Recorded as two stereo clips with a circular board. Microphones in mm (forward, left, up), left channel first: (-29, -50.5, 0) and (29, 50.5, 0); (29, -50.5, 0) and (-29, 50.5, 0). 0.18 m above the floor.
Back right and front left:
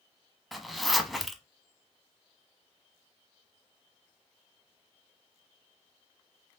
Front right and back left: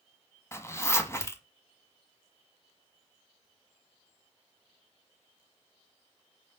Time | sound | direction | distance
0.5 | a zipper | 30° right | 0.9 m